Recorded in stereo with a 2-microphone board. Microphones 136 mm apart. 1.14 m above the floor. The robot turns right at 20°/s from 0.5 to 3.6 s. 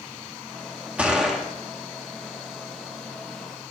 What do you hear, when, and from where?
1.0 s a gunshot: 10° right (ahead or behind), 1.2 m; by 1.4 s centre (ahead or behind), 1.2 m